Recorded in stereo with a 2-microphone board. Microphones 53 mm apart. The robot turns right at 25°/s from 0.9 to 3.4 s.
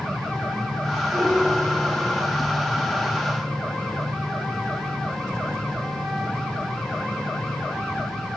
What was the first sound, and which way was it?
A piano, 5° right.